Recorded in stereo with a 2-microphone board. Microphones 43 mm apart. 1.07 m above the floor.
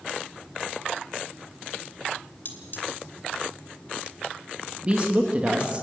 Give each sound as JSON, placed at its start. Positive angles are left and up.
{"t": 2.5, "sound": "cutlery clinking", "side_deg": 50, "distance_m": 2.5}
{"t": 4.8, "sound": "a woman speaking", "side_deg": -25, "distance_m": 1.4}